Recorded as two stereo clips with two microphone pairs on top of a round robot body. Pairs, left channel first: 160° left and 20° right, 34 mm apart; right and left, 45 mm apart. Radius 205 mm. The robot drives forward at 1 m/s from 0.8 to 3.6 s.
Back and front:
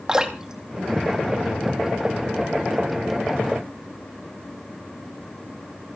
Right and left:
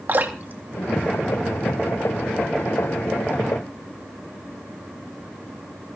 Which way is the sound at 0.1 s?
50° left.